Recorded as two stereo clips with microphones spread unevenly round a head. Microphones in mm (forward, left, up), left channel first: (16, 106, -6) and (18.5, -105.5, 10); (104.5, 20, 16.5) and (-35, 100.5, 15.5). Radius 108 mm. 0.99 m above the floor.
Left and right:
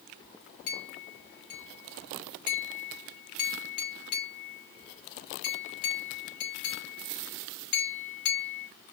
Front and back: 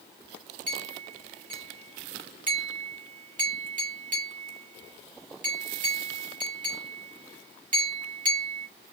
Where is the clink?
110° left, 2.5 m.